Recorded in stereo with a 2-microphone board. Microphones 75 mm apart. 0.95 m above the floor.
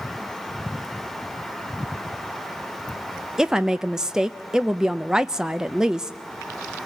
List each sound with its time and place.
3.4 s a woman speaking: 10° right (ahead or behind), 0.6 m